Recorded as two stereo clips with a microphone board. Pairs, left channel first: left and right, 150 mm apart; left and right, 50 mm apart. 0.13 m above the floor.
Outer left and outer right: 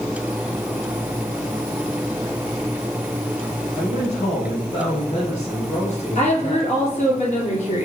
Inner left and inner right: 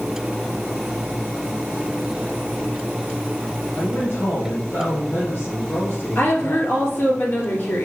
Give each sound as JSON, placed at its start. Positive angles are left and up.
{"t": 3.8, "sound": "a man speaking", "side_deg": 55, "distance_m": 2.5}
{"t": 6.2, "sound": "a woman speaking", "side_deg": 50, "distance_m": 3.0}